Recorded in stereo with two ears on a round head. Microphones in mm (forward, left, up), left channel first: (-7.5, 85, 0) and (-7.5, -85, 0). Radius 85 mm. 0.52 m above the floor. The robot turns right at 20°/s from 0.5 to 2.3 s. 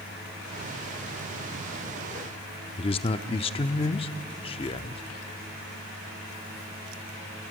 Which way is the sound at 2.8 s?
30° left (ahead or behind).